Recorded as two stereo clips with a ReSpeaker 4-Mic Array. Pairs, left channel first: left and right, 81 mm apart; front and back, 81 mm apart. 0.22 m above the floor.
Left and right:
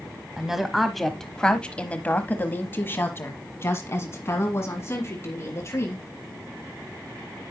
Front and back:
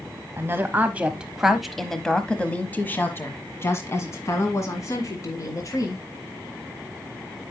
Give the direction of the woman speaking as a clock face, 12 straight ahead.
6 o'clock.